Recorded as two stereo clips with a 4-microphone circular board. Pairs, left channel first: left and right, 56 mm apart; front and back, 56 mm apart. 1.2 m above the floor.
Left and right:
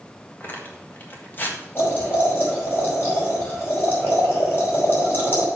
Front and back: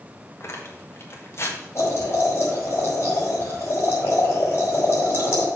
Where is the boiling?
40° left, 5 m.